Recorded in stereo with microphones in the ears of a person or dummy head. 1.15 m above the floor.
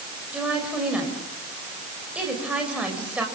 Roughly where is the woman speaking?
Centre.